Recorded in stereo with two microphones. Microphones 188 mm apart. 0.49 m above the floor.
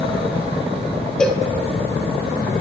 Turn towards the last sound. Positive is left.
turn(degrees=5)  # may be behind; listen again after turning